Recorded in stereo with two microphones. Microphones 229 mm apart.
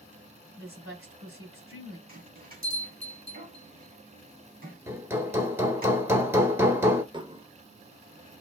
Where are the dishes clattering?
20° right (ahead or behind), 0.5 m.